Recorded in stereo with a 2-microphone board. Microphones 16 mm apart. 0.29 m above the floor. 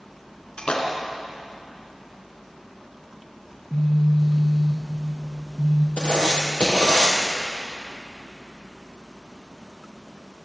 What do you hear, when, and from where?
0.6 s a splash: 70° left (ahead or behind), 4 m
3.5 s a phone buzzing: 55° left (ahead or behind), 8 m
6.0 s writing: 65° left (ahead or behind), 4 m